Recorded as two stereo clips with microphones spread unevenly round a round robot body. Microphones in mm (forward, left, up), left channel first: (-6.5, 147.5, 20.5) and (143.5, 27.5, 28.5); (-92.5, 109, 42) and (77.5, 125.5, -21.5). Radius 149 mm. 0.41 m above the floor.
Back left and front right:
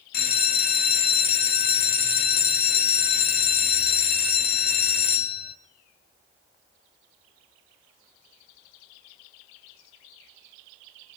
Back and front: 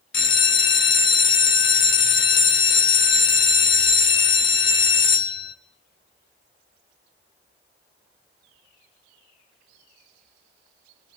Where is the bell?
170° left, 0.9 m.